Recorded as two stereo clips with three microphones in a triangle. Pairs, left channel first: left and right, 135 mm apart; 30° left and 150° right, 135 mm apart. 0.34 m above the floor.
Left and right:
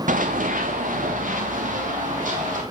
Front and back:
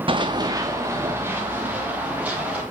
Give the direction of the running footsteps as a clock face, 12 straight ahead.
3 o'clock.